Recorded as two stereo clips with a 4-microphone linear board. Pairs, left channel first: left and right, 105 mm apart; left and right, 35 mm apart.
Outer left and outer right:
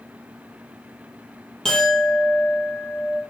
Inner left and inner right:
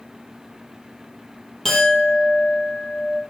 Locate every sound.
1.6 s a clink: 5° left (ahead or behind), 3 m